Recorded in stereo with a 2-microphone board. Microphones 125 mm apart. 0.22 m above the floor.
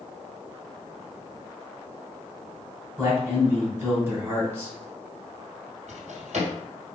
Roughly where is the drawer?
Right.